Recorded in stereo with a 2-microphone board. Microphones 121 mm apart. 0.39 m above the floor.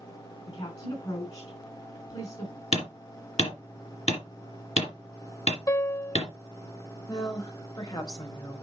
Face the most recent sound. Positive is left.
turn(degrees=40)  # may be behind; listen again after turning